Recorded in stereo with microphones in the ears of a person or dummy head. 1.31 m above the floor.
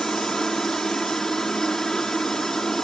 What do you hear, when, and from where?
0.0 s a helicopter: centre (ahead or behind)